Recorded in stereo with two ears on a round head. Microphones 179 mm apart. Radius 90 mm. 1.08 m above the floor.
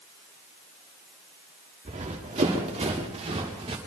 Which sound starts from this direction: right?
Running footsteps, at 1.9 s.